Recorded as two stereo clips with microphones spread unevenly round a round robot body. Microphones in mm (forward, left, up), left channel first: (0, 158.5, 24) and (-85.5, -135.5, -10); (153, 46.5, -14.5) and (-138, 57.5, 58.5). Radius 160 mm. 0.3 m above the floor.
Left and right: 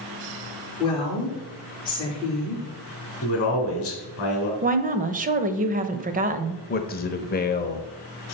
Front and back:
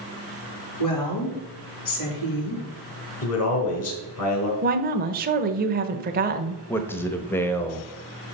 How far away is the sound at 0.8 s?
About 5 m.